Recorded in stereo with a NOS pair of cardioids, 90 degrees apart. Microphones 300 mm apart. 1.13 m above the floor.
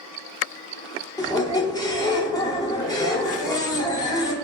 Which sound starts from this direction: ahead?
A squeak, at 1.2 s.